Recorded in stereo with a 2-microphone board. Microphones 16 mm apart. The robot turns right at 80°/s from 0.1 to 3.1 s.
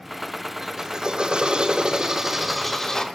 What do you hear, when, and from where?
0.6 s a drill: 160° right, 5.5 m; by 3.0 s 40° left, 5.5 m